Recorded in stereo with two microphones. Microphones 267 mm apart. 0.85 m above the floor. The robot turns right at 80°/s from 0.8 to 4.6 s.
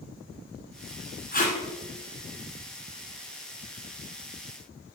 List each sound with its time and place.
1.3 s tape being pulled: 35° left (ahead or behind), 1.6 m; by 1.6 s 15° left (ahead or behind), 1.6 m